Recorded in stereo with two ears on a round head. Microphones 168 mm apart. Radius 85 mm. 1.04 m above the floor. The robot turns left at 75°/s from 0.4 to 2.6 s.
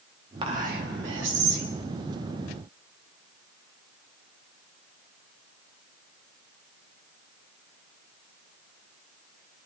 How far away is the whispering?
About 2.5 m.